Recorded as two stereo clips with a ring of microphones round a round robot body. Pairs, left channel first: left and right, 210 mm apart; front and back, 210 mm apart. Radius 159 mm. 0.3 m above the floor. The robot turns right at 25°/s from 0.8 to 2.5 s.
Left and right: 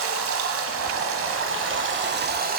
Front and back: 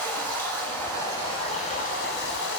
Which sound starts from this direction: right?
Running water, at 0.0 s.